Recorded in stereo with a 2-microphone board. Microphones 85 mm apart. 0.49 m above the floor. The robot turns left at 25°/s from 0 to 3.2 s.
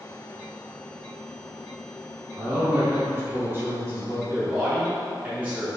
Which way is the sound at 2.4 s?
30° right (ahead or behind).